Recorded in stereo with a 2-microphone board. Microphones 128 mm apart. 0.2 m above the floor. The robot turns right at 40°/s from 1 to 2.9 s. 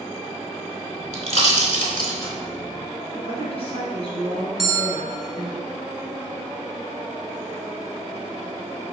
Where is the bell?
Centre (ahead or behind), 0.7 m.